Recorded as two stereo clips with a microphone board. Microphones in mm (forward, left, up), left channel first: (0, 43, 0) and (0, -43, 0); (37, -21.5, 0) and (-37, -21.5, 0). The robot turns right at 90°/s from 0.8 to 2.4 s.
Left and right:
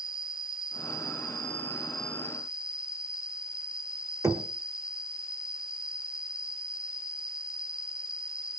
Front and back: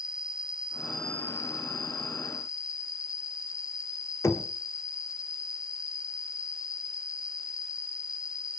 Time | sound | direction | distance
0.0 | an insect | 105° right | 0.9 m
4.2 | knocking | 45° right | 1.4 m